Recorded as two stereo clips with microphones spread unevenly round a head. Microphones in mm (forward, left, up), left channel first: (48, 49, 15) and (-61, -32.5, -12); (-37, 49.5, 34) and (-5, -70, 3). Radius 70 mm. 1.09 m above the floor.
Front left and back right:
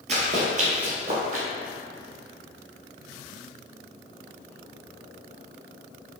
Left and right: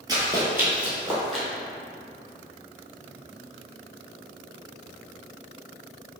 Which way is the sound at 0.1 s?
140° right.